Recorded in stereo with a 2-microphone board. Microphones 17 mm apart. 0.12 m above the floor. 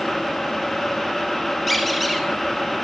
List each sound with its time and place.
1.7 s a squeak: 5° left (ahead or behind), 1.6 m